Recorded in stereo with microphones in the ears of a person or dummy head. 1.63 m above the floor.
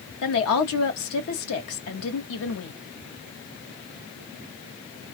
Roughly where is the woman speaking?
Left.